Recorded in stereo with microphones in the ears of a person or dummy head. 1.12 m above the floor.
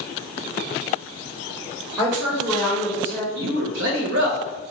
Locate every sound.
2.0 s a woman speaking: 25° right (ahead or behind), 1.7 m; by 3.2 s 15° left (ahead or behind), 1.4 m
3.4 s a man speaking: 60° right (ahead or behind), 0.8 m